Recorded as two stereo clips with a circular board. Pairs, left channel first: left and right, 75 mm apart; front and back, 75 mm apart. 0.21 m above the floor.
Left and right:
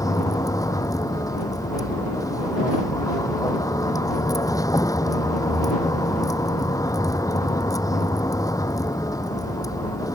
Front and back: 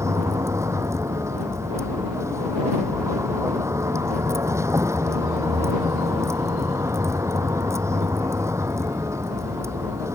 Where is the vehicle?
130° left.